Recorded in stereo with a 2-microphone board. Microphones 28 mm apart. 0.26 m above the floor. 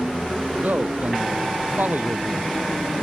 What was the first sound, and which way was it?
A man speaking, 80° right.